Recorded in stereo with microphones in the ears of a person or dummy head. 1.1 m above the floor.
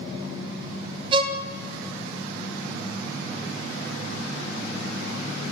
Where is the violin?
20° right (ahead or behind), 0.5 m.